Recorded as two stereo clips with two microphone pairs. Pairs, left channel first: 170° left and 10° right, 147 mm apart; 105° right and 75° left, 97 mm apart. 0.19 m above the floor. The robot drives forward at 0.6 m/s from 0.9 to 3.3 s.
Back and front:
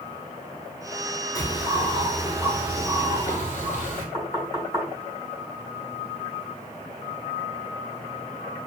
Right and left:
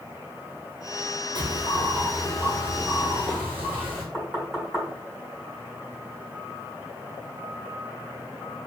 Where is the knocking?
150° left, 1.2 m.